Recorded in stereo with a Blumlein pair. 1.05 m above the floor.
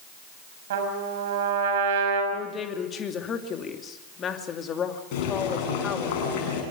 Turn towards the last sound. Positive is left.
turn(degrees=45)